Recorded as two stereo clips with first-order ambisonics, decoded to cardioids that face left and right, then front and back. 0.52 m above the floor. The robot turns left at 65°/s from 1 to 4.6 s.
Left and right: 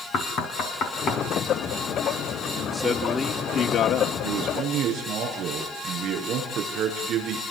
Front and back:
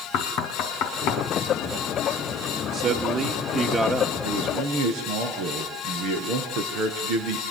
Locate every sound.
0.1 s knocking: 35° left, 3.5 m; by 1.2 s 20° left, 3.5 m
2.7 s a man speaking: 170° right, 1.5 m; by 4.1 s 95° left, 1.5 m
4.2 s a man speaking: 115° right, 7 m; by 7.4 s 140° right, 7 m